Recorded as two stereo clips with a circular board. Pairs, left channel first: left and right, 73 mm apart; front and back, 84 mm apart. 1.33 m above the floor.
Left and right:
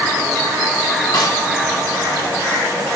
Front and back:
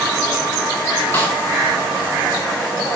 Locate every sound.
1.1 s a snare drum: 65° left, 2.5 m